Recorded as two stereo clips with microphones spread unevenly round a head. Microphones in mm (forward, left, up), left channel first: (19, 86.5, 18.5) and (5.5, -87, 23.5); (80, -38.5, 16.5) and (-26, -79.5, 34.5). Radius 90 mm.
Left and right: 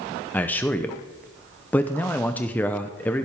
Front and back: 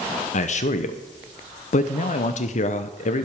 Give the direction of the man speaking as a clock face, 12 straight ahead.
12 o'clock.